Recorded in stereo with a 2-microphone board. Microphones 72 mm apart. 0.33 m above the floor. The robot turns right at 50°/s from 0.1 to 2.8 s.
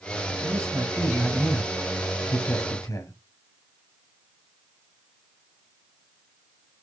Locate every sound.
0.4 s a man speaking: 60° right, 1.7 m; by 3.1 s 60° left, 1.7 m